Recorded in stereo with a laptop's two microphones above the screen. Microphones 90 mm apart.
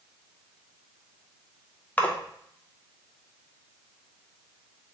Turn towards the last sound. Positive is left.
turn(degrees=15)  # may be behind; listen again after turning